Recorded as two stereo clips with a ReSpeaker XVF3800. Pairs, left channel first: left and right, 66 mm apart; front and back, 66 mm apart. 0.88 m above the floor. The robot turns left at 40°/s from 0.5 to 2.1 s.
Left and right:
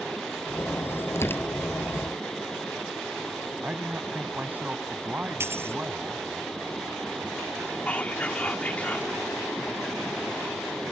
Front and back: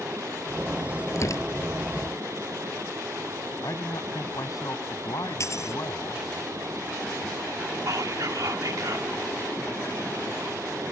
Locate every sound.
1.1 s tearing paper: 40° left; by 1.7 s 20° left
3.6 s a man speaking: 25° right
5.4 s a dropped coin: 40° right
7.9 s whispering: 155° left